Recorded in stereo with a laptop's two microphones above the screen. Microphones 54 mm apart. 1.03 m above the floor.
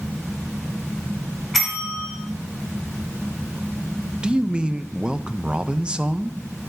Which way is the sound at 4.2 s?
15° right (ahead or behind).